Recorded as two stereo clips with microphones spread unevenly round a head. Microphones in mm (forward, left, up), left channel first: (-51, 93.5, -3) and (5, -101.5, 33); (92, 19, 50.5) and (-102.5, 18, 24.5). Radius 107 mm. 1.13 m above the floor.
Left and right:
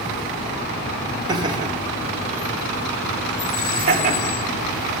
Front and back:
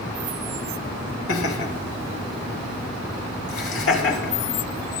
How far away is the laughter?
About 2.5 m.